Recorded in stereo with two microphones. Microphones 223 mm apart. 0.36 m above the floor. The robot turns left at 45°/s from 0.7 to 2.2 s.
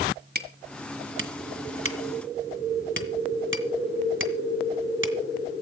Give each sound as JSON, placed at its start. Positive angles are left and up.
{"t": 0.3, "sound": "hammering", "side_deg": -45, "distance_m": 1.9}